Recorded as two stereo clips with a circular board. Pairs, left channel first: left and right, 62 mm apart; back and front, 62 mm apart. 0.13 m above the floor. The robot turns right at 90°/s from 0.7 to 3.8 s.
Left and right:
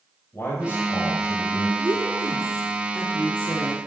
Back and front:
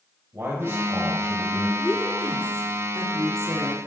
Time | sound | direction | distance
0.3 | a man speaking | 40° left | 3.5 m
1.8 | a woman speaking | 110° right | 2.5 m